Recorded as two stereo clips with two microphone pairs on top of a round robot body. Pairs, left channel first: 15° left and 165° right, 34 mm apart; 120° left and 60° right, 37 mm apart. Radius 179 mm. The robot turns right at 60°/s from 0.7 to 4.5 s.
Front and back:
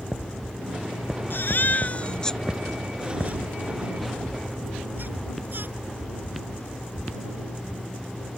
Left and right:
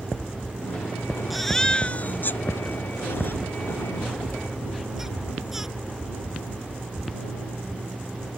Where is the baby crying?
30° left; by 5.7 s 140° right.